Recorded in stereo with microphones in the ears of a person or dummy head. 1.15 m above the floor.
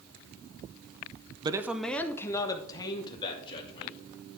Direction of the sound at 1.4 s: 20° right (ahead or behind).